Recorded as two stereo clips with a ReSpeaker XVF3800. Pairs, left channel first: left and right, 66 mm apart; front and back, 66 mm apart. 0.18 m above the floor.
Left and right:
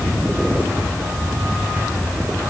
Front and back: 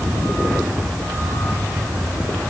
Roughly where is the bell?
I don't hear a bell.